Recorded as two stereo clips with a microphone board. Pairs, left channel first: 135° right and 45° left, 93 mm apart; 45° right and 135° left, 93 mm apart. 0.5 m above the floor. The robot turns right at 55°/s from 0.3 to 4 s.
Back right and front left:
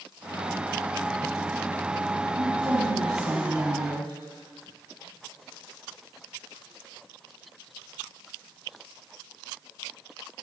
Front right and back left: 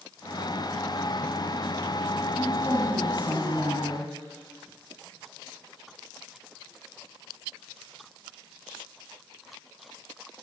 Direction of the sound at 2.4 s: 45° left.